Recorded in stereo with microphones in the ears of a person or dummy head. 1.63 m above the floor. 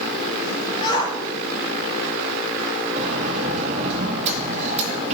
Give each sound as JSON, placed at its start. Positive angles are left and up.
{"t": 0.8, "sound": "a shout", "side_deg": 25, "distance_m": 4.0}
{"t": 3.0, "sound": "a sliding door", "side_deg": -35, "distance_m": 2.5}